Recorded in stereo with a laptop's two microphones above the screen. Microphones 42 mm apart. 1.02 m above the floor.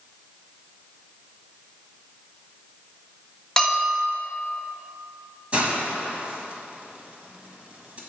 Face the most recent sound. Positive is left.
turn(degrees=-30)  # may be behind; listen again after turning